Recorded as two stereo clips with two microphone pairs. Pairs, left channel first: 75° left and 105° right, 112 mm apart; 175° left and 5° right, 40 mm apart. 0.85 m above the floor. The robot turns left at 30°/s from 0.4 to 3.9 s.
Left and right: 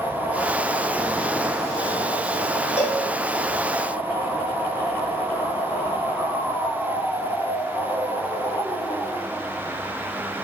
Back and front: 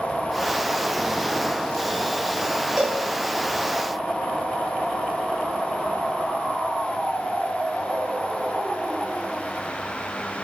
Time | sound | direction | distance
2.8 | a cowbell | 70° left | 0.6 m